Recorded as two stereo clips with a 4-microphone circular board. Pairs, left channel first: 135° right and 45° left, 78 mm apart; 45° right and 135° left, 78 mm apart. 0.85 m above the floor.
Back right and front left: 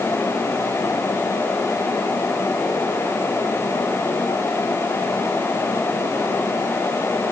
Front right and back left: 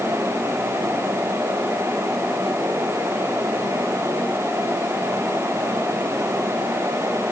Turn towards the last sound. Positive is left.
No sound to turn to.